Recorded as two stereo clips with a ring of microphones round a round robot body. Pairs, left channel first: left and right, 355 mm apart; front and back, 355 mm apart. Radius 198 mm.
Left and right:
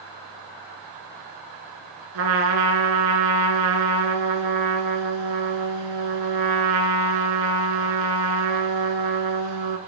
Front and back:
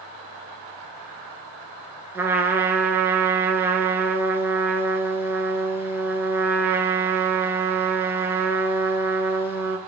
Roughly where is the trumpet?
Right.